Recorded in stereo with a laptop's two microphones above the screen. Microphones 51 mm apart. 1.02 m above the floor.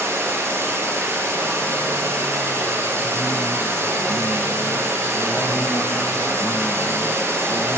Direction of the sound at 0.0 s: 65° right (ahead or behind).